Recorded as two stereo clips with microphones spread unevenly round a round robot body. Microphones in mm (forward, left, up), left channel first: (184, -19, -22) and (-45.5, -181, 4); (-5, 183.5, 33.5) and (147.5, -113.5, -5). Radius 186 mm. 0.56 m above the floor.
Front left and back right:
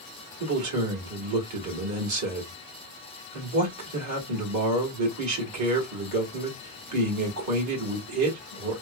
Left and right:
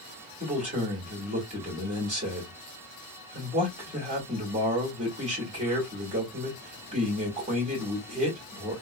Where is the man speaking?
130° right, 1.7 m.